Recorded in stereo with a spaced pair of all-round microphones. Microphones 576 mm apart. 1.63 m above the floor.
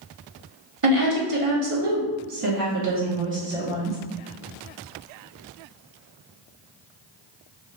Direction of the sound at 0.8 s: 70° right (ahead or behind).